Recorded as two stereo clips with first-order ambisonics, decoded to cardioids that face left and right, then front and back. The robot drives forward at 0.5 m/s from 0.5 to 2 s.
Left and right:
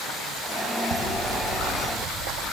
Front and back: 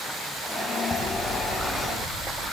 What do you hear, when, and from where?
0.9 s ticking: 100° right, 7 m; by 2.4 s 105° right, 7 m